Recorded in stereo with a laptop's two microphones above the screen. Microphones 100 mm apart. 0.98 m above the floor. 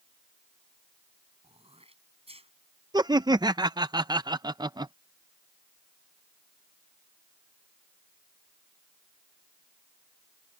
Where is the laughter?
45° right (ahead or behind).